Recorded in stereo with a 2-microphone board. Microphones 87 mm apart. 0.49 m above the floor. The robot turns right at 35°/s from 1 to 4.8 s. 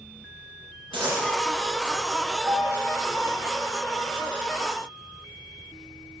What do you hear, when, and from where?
0.9 s a dropped coin: 85° right, 3 m; by 1.3 s 80° right, 3 m
2.5 s a piano: 35° right (ahead or behind), 1.0 m